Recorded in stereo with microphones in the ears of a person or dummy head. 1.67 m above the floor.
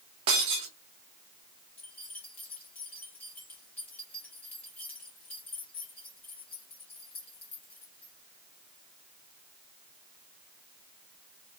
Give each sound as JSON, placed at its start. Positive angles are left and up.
{"t": 0.3, "sound": "breaking glass", "side_deg": -20, "distance_m": 1.0}
{"t": 1.8, "sound": "keys jangling", "side_deg": 15, "distance_m": 2.5}